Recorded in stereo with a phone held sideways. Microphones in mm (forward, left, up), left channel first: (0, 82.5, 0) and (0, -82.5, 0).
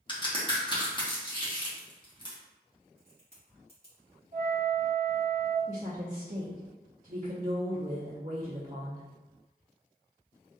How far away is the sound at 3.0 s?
About 1.7 m.